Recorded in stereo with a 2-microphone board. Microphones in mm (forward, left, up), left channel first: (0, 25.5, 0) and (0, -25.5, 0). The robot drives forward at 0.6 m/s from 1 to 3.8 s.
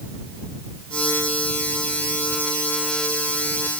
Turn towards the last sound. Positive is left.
No sound to turn to.